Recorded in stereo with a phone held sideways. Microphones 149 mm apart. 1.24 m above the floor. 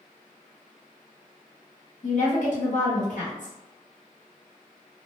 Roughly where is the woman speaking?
Left.